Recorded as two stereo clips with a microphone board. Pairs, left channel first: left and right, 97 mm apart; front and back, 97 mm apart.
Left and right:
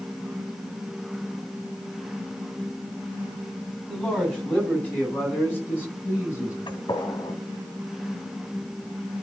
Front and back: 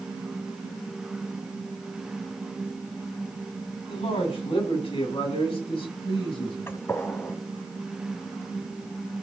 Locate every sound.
3.9 s a man speaking: 10° left, 7 m; by 6.6 s 25° left, 8.5 m
6.7 s a gunshot: 60° left, 1.8 m